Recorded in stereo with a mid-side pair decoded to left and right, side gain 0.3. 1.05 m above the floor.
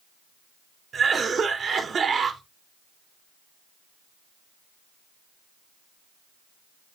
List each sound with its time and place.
0.9 s a cough: 65° right, 2.5 m